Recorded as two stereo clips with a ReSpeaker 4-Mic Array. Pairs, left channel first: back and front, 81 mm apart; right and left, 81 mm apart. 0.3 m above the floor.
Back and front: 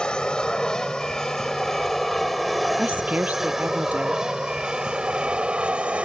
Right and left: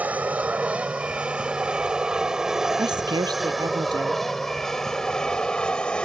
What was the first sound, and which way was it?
An aircraft, 120° left.